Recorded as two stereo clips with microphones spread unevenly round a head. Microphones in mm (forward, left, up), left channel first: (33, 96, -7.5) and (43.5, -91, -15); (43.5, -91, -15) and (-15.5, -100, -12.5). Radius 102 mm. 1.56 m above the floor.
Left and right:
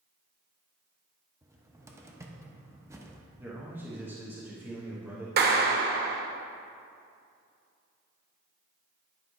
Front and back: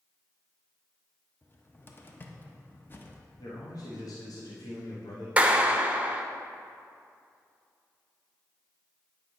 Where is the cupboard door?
20° right, 0.9 m.